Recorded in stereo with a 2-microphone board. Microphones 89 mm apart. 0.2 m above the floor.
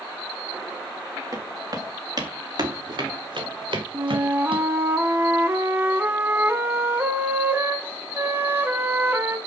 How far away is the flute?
About 1.6 m.